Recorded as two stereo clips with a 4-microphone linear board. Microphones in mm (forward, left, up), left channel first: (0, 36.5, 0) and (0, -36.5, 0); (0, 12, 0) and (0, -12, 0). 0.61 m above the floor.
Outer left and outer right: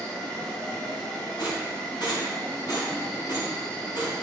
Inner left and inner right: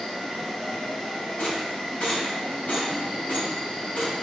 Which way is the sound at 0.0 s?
20° left (ahead or behind).